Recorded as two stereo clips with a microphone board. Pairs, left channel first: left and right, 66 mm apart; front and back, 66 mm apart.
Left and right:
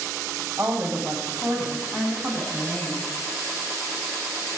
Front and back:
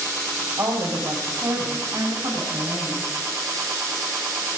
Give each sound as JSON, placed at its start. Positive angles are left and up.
{"t": 0.6, "sound": "a woman speaking", "azimuth_deg": -160, "distance_m": 3.5}